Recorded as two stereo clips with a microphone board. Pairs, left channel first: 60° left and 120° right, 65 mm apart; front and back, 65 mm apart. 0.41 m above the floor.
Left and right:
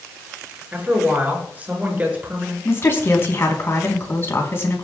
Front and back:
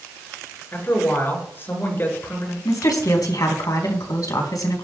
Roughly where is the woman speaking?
Ahead.